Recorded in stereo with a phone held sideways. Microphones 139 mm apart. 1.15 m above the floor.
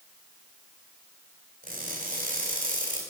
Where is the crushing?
75° right (ahead or behind), 3 m.